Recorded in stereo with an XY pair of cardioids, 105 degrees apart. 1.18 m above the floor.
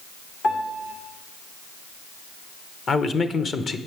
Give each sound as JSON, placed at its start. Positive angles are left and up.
{"t": 0.4, "sound": "a piano", "azimuth_deg": 65, "distance_m": 2.0}
{"t": 2.9, "sound": "a man speaking", "azimuth_deg": 40, "distance_m": 0.9}